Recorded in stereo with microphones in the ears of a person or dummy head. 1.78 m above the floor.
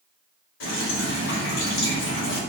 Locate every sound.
0.6 s dripping: 80° left, 1.2 m